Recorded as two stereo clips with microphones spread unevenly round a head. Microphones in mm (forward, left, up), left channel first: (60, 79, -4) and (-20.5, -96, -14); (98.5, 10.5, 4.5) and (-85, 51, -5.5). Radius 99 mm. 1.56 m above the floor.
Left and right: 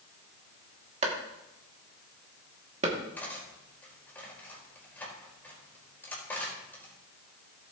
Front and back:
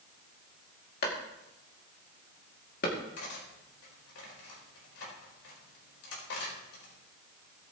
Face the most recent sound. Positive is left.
turn(degrees=-15)